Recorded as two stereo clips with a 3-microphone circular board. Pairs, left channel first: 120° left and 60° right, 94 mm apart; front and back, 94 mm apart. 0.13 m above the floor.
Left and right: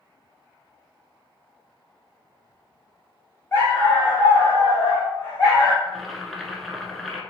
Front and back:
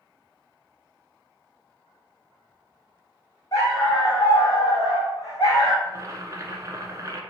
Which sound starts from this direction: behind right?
Boiling, at 5.8 s.